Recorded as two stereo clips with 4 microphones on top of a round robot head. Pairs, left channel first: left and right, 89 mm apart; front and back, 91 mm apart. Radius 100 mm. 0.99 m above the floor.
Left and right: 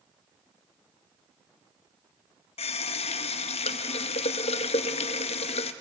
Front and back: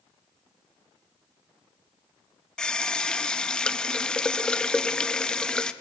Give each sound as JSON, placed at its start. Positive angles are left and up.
{"t": 2.6, "sound": "a running tap", "azimuth_deg": 80, "distance_m": 0.6}